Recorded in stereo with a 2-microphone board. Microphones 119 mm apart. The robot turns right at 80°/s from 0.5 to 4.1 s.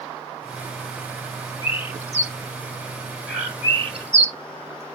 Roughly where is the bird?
Left.